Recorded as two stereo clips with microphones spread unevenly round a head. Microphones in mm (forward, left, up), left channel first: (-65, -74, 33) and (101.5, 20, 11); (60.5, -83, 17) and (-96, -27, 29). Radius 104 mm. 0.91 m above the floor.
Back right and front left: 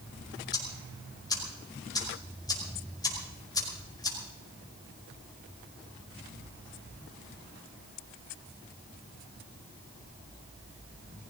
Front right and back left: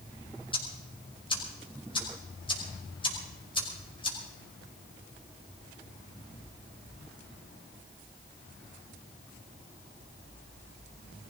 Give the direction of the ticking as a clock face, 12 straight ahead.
3 o'clock.